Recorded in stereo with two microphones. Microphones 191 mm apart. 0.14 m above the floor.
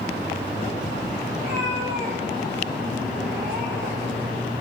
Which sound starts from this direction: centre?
A cat meowing, at 1.4 s.